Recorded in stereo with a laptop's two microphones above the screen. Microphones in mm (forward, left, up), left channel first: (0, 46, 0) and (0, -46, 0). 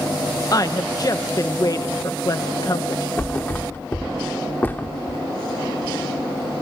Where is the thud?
20° left (ahead or behind), 1.0 m.